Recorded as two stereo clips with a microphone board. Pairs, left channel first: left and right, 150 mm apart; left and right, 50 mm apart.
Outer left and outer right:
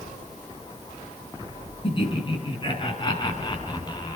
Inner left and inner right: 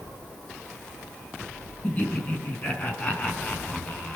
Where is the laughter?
35° left (ahead or behind), 5.5 m; by 4.2 s 30° left (ahead or behind), 4 m.